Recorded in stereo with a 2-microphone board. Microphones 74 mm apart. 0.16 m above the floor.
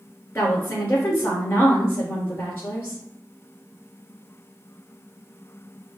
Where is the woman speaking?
30° left (ahead or behind), 3 m.